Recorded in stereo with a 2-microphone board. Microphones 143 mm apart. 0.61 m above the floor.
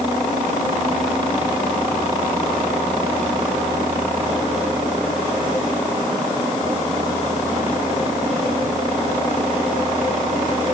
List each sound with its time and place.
Only background noise.